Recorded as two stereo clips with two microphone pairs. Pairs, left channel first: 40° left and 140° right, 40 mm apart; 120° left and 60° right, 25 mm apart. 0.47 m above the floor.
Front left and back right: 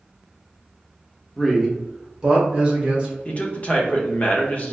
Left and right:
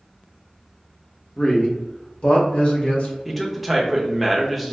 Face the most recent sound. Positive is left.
turn(degrees=35)